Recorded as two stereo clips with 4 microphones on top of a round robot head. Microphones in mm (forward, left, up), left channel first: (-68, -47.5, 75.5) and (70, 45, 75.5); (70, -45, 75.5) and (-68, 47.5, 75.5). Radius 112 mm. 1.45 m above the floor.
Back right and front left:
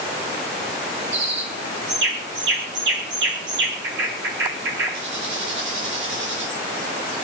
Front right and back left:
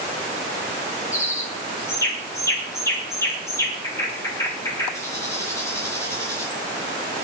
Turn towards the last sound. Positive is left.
turn(degrees=40)